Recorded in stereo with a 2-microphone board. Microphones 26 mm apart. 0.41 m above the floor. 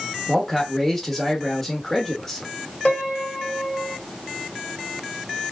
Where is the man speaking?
15° left (ahead or behind), 1.2 m.